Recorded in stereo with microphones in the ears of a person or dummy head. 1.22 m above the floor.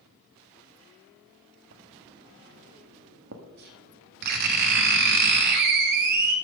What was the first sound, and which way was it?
Writing, 55° right (ahead or behind).